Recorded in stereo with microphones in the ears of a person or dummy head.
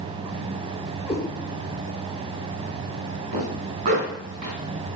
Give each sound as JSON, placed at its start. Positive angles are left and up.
{"t": 1.1, "sound": "a cat meowing", "side_deg": 0, "distance_m": 3.5}
{"t": 3.3, "sound": "a zipper", "side_deg": -50, "distance_m": 2.5}